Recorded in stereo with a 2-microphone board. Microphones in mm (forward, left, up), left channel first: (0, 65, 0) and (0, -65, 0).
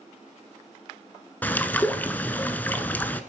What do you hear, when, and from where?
1.4 s a bird: 15° left (ahead or behind), 1.0 m